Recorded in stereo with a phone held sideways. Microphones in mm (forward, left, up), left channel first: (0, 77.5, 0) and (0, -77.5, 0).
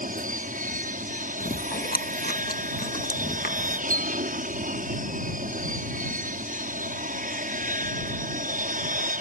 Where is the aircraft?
60° right (ahead or behind).